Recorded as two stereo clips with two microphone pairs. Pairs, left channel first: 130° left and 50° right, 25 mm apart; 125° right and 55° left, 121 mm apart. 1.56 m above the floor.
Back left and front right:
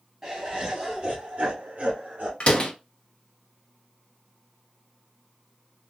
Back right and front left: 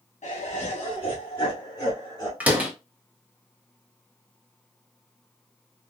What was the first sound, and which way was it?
Laughter, 120° right.